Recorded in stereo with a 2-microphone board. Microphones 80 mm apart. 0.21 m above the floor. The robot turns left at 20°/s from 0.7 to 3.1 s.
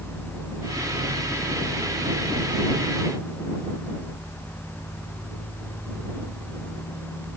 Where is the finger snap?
I don't hear a finger snap.